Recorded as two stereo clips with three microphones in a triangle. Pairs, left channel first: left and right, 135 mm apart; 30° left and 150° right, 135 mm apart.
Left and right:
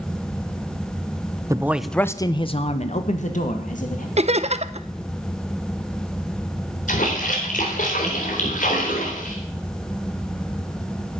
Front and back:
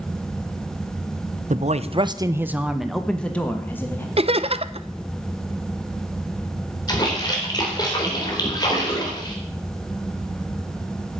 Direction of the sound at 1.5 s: 155° right.